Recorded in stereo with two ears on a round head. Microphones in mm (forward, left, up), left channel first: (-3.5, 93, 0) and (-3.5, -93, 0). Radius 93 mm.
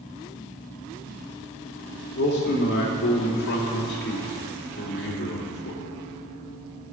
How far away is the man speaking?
About 2 m.